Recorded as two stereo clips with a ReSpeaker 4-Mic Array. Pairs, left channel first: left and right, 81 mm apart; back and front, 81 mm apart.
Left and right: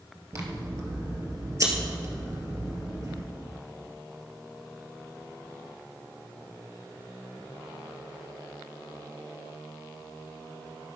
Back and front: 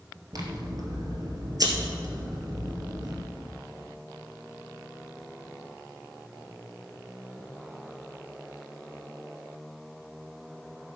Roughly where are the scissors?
Ahead right.